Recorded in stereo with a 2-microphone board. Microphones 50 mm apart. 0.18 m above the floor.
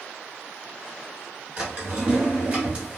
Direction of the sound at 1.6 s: 25° right (ahead or behind).